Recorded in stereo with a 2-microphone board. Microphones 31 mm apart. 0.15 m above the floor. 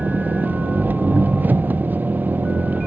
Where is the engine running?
75° right (ahead or behind).